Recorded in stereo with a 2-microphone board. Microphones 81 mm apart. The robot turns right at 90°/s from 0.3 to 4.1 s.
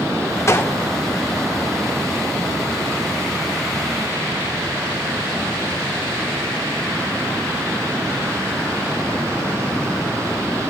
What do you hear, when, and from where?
0.5 s a gunshot: 35° left (ahead or behind), 0.6 m; by 0.8 s 20° left (ahead or behind), 0.6 m